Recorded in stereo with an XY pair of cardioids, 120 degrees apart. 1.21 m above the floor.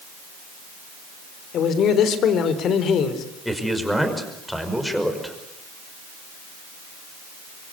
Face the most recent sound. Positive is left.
turn(degrees=0)